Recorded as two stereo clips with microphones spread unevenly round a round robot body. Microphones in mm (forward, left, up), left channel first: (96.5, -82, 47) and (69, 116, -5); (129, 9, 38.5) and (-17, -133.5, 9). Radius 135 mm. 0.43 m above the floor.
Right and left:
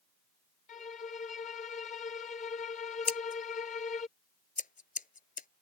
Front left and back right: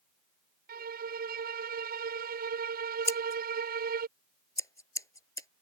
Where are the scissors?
30° right.